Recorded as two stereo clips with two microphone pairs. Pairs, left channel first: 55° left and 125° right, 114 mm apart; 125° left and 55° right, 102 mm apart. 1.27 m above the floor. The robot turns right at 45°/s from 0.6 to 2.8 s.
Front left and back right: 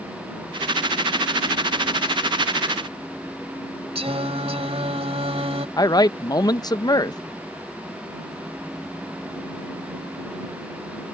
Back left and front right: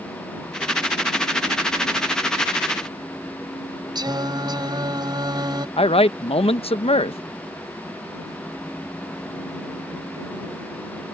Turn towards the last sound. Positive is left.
turn(degrees=110)